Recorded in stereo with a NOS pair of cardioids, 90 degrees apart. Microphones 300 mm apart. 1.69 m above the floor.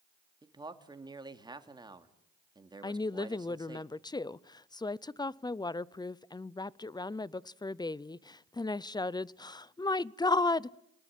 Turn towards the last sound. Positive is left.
turn(degrees=15)